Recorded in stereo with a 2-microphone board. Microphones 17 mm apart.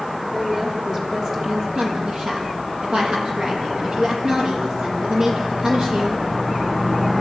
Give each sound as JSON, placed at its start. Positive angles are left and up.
{"t": 0.3, "sound": "a woman speaking", "side_deg": -35, "distance_m": 6.0}
{"t": 1.8, "sound": "a woman speaking", "side_deg": -65, "distance_m": 7.0}